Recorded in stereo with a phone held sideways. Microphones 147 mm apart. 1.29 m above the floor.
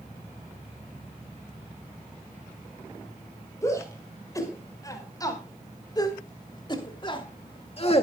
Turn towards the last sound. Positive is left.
turn(degrees=45)  # may be behind; listen again after turning